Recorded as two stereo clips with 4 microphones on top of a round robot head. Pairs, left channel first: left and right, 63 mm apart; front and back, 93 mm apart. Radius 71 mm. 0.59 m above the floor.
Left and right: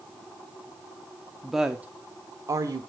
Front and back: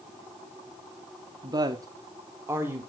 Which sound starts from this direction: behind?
A woman speaking, at 1.4 s.